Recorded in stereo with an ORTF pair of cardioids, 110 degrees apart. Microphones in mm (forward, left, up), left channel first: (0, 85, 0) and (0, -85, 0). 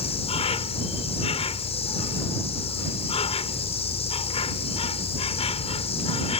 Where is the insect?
35° left.